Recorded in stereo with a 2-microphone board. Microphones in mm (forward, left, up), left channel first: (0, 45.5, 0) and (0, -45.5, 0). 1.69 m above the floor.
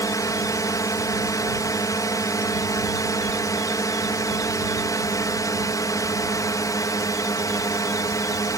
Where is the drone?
45° left (ahead or behind).